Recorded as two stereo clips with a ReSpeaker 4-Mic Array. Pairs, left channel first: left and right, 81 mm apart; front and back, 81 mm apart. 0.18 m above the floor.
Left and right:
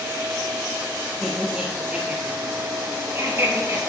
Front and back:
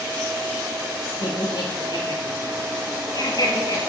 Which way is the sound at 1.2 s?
10° right.